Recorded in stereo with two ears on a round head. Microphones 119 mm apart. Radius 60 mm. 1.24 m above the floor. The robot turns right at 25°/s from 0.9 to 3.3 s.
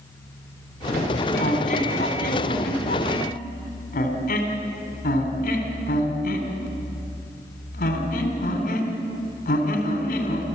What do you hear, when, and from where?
1.4 s a squeak: 50° left (ahead or behind), 3 m; by 10.4 s 70° left (ahead or behind), 3 m